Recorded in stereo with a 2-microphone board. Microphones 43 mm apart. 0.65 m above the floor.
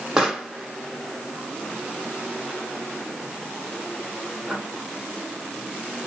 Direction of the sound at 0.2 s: 15° right (ahead or behind).